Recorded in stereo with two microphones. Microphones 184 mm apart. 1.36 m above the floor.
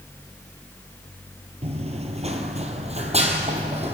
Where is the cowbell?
I don't hear a cowbell.